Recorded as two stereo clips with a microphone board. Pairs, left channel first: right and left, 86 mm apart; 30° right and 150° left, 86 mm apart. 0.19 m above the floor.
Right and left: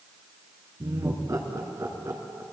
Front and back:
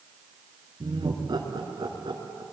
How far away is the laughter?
About 3 m.